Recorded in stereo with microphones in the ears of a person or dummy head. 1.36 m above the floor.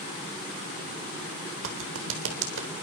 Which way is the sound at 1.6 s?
80° right.